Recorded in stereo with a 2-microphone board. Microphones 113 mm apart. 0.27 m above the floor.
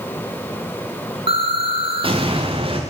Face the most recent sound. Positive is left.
turn(degrees=-50)  # may be behind; listen again after turning